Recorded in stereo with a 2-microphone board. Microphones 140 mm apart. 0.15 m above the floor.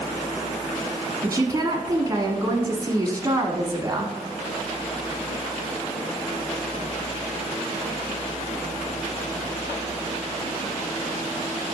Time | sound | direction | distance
1.2 | a woman speaking | 25° right (ahead or behind) | 1.1 m